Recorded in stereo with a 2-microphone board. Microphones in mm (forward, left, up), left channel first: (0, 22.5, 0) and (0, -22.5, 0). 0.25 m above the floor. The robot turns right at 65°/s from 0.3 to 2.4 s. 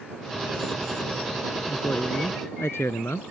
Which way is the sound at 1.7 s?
40° left.